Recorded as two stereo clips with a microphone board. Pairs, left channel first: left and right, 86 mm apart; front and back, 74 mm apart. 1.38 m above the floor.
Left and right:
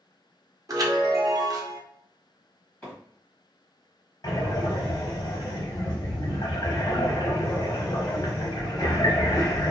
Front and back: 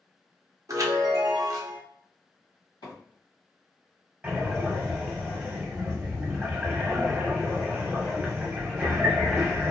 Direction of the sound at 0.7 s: 140° right.